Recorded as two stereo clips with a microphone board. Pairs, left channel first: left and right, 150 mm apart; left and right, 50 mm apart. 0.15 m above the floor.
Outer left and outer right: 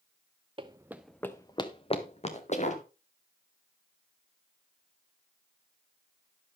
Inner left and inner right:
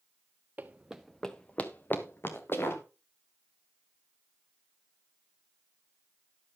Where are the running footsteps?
35° right (ahead or behind), 1.1 m; by 2.8 s 55° left (ahead or behind), 3 m.